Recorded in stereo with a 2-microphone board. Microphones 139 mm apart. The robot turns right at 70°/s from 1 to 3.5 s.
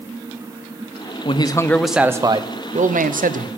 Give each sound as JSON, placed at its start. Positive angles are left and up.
{"t": 1.2, "sound": "a man speaking", "azimuth_deg": 135, "distance_m": 0.6}